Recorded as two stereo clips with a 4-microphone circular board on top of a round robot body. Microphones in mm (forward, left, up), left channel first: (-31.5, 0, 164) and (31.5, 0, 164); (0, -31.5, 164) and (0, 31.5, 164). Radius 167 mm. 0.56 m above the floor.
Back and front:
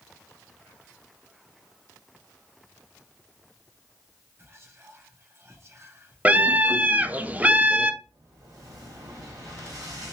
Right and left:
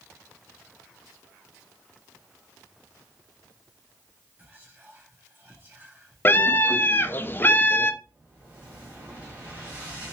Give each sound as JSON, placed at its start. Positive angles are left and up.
{"t": 4.4, "sound": "whispering", "azimuth_deg": 40, "distance_m": 1.9}
{"t": 6.2, "sound": "a scream", "azimuth_deg": -55, "distance_m": 0.7}
{"t": 8.0, "sound": "an explosion", "azimuth_deg": 25, "distance_m": 2.0}